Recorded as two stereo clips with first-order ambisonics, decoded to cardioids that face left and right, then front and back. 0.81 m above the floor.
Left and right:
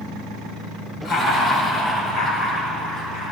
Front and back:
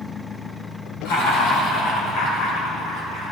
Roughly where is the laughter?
Ahead.